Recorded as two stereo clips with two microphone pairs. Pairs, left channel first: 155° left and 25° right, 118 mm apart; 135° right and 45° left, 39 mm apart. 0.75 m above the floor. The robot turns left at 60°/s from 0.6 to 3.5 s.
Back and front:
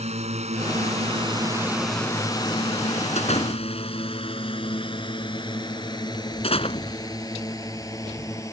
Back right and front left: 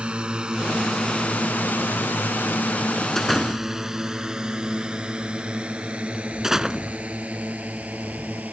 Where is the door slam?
145° left; by 8.4 s 125° left.